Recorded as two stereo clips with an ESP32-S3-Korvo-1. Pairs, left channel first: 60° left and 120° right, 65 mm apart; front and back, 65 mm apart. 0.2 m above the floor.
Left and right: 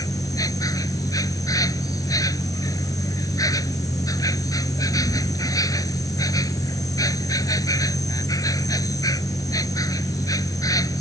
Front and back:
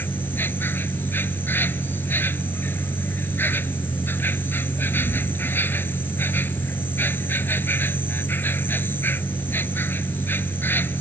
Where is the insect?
55° left.